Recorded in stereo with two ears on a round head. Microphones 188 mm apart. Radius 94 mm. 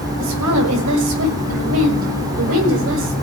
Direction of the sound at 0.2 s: 90° right.